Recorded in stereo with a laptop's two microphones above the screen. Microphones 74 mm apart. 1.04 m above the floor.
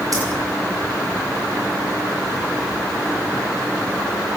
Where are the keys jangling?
50° right (ahead or behind), 6 m.